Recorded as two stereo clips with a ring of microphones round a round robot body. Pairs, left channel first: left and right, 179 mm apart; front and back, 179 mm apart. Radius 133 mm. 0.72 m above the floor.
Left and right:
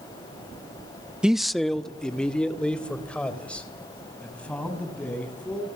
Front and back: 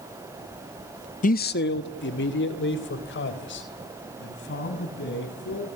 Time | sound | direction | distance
1.2 | a man speaking | 5° right | 0.6 m